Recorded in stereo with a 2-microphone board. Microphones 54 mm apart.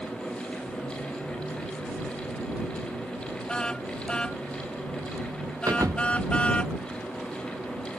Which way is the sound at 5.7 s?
70° right (ahead or behind).